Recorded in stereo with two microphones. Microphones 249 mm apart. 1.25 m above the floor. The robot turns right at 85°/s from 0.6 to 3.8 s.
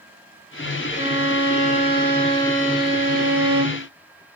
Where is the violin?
35° left, 1.4 m; by 3.9 s 80° right, 1.4 m.